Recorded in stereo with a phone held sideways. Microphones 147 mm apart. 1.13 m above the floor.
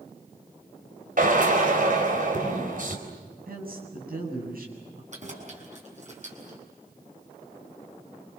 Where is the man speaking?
75° right (ahead or behind), 8.5 m.